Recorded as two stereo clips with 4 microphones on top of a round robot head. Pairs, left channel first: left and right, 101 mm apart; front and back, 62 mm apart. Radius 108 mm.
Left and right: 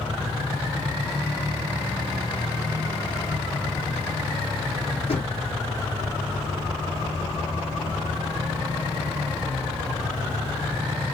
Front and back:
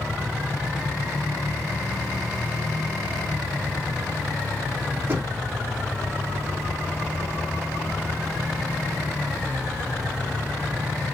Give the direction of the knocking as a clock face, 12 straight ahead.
8 o'clock.